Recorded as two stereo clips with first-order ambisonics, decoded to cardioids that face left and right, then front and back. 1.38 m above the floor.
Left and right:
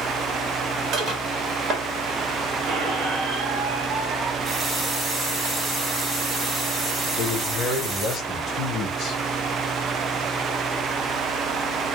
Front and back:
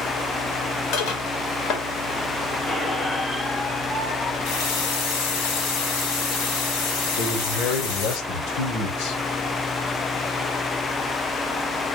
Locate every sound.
0.9 s dishes clattering: 30° right, 2.0 m
2.7 s a squeak: 70° right, 1.7 m
4.4 s a running tap: 15° right, 2.5 m
7.2 s a man speaking: 30° left, 1.4 m